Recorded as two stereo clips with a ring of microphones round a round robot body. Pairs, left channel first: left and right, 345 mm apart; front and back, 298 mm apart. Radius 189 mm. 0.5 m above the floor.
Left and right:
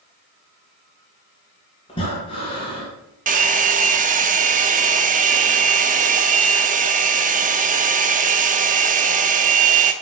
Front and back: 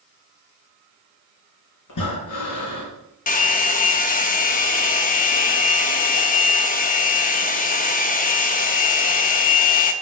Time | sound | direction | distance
1.9 | breathing | 15° left | 2.5 m
3.3 | a hair dryer | 40° right | 0.6 m